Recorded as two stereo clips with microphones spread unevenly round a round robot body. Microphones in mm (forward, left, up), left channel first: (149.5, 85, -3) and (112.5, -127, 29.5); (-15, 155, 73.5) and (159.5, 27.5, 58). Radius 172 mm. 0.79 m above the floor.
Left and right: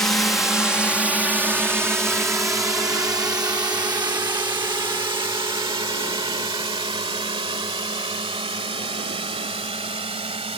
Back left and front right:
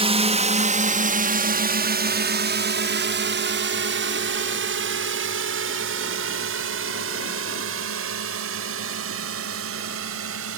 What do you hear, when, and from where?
0.0 s a drone: 5° left; by 10.6 s 35° right